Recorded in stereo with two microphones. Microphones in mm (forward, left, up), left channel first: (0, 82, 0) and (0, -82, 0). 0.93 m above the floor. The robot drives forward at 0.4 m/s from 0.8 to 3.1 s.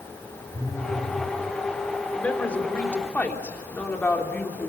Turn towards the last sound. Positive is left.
turn(degrees=10)  # may be behind; listen again after turning